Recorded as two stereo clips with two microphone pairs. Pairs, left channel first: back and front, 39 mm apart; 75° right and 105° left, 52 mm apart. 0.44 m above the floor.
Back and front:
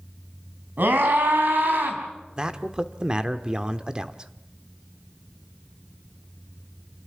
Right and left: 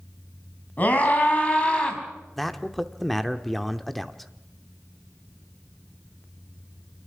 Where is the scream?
20° right, 4.5 m; by 2.0 s 5° right, 4 m.